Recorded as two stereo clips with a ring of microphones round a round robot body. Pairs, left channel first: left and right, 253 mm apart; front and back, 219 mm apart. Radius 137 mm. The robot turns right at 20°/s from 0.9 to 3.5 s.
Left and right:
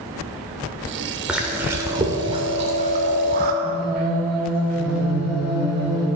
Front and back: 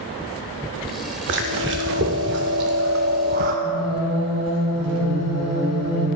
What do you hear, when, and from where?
1.3 s chewing: 175° right, 0.6 m; by 3.5 s 130° right, 0.6 m
3.6 s singing: 175° right, 3 m